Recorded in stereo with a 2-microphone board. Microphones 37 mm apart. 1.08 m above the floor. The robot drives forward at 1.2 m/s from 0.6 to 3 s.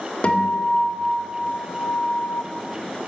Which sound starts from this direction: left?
A guitar, at 0.2 s.